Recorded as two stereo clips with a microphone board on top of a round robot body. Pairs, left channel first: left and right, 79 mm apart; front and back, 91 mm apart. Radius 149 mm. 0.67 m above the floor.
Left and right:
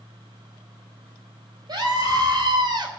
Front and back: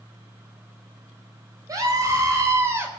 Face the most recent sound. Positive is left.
turn(degrees=-115)